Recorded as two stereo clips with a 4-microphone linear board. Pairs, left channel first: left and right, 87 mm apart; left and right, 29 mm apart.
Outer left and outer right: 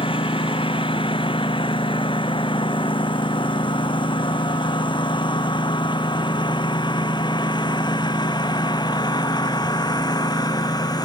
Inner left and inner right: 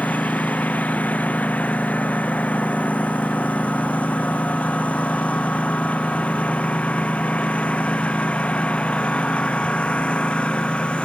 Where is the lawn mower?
65° left (ahead or behind); by 11.1 s 45° left (ahead or behind).